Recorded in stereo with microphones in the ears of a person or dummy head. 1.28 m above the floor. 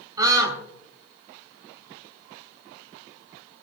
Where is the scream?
20° right (ahead or behind), 4.5 m.